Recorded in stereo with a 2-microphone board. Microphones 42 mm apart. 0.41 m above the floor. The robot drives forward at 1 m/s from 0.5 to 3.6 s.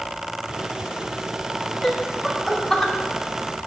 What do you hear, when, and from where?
1.8 s laughter: 5° left (ahead or behind), 3.5 m